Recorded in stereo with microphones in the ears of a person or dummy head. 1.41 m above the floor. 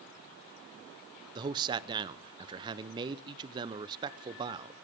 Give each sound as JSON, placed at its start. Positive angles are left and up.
{"t": 1.4, "sound": "a man speaking", "side_deg": -25, "distance_m": 0.7}